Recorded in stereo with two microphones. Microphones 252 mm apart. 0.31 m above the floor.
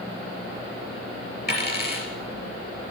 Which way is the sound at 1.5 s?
40° left (ahead or behind).